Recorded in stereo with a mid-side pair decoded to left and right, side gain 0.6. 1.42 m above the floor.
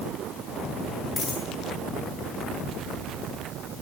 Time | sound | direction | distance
1.2 | a dropped coin | 35° left | 9 m